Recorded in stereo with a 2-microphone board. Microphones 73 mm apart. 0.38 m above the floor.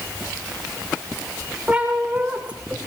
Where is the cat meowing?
20° right (ahead or behind), 8.5 m; by 2.9 s 15° right (ahead or behind), 9 m.